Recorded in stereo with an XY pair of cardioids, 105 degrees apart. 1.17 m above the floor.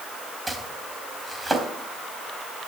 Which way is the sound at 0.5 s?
15° right.